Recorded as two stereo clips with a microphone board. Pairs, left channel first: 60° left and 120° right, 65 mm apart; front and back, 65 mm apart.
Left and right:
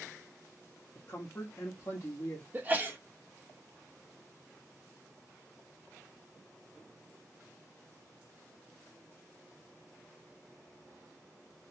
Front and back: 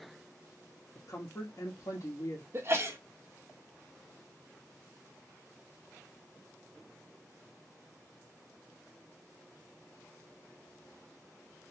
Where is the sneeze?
165° right, 0.9 m.